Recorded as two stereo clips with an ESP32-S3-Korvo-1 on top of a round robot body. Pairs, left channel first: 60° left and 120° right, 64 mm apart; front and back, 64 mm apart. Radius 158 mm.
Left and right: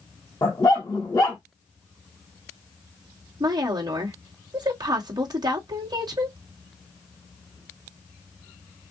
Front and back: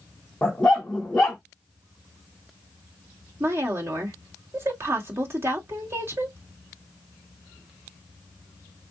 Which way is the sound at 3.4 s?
125° right.